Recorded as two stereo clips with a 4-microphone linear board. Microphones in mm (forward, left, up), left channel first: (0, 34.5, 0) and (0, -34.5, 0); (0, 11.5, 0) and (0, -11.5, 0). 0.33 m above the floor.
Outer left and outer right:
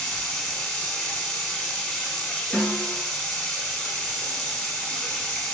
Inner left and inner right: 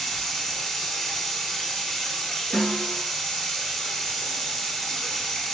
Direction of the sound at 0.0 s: 10° left (ahead or behind).